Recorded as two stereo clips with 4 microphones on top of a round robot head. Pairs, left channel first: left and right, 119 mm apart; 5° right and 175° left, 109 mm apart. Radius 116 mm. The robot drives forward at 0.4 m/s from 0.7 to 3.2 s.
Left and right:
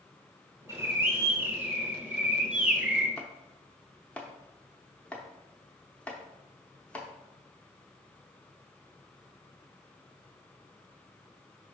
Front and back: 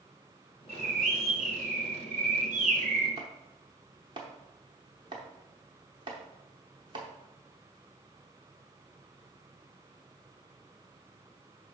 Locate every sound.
0.7 s a bird: 145° right, 0.7 m; by 3.1 s 170° right, 1.4 m
3.2 s chopping: 165° left, 0.6 m